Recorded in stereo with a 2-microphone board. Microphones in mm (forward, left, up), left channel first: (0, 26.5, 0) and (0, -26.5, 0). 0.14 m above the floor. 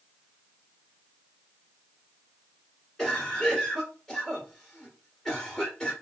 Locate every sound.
3.0 s a cough: 5° left (ahead or behind), 1.3 m